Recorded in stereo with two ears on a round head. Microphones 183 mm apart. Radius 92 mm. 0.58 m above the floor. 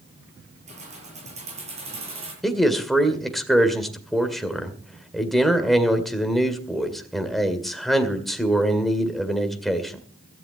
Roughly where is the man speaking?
Centre.